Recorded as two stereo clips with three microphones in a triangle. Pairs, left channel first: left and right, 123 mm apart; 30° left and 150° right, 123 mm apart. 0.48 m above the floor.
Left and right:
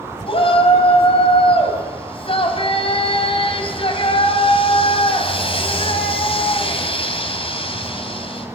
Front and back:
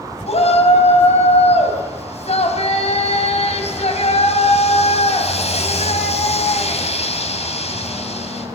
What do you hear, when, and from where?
0.3 s a shout: 55° left, 4 m